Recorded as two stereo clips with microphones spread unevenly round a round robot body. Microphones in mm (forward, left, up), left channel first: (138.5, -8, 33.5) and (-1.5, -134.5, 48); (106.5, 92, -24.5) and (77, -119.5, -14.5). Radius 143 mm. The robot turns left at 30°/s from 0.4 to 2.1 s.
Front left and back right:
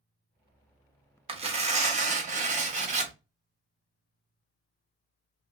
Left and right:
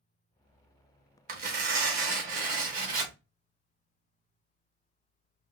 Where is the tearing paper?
90° right, 1.0 m; by 3.1 s 115° right, 1.0 m.